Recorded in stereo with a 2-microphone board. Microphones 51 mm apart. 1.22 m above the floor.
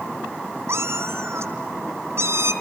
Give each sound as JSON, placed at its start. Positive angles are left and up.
{"t": 0.7, "sound": "a cat meowing", "side_deg": -65, "distance_m": 2.5}